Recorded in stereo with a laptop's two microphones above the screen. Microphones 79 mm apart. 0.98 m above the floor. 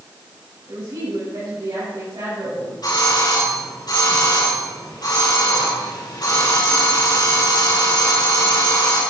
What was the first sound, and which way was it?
A woman speaking, 60° right (ahead or behind).